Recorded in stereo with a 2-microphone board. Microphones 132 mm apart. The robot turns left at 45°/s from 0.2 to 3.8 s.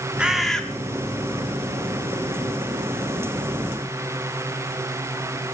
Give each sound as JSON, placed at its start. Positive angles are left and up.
{"t": 0.2, "sound": "a bird", "side_deg": -5, "distance_m": 1.1}